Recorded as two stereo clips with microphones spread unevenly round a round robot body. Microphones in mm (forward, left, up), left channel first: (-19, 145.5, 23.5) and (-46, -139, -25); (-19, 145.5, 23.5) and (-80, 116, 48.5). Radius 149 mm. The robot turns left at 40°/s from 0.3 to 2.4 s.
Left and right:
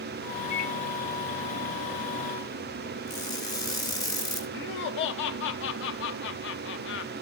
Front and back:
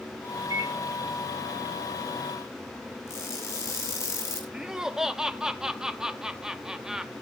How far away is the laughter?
About 0.6 m.